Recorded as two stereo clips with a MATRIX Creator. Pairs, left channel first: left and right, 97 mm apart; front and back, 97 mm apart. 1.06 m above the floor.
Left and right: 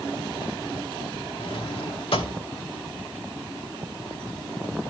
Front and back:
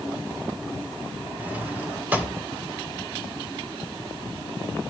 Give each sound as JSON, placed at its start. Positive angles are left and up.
{"t": 1.4, "sound": "a drawer", "azimuth_deg": 105, "distance_m": 2.0}